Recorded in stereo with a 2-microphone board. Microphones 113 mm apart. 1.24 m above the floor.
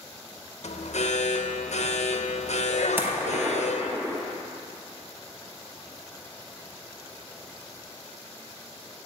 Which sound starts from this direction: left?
An alarm, at 0.6 s.